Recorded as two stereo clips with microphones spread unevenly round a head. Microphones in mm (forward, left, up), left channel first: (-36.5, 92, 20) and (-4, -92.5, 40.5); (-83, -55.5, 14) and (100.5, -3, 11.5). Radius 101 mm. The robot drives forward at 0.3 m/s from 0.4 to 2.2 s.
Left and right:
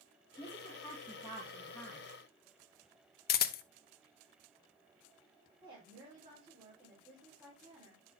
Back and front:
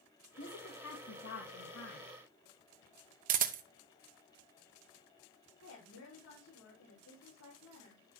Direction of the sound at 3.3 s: 65° left.